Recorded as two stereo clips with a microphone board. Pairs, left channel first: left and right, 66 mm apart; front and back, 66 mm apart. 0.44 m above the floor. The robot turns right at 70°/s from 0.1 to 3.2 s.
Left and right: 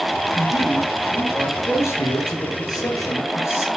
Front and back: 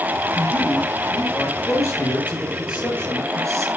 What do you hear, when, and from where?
0.3 s a man speaking: 60° right, 8 m; by 3.7 s 140° left, 8 m